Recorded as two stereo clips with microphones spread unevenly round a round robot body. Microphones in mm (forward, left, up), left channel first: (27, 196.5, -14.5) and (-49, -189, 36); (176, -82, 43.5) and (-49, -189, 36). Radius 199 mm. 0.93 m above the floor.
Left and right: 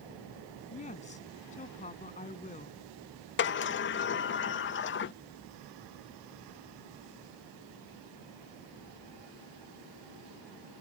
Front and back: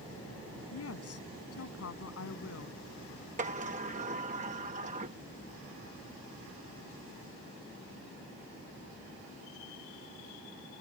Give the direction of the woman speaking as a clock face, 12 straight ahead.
12 o'clock.